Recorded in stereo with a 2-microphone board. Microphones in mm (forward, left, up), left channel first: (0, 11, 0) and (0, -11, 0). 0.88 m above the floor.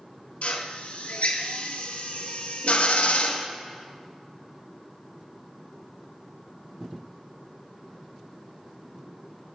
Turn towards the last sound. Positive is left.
turn(degrees=70)  # may be behind; listen again after turning